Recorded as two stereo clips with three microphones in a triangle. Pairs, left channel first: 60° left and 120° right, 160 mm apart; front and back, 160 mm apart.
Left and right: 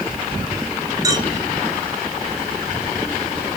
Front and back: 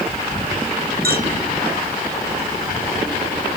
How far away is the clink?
About 2.5 m.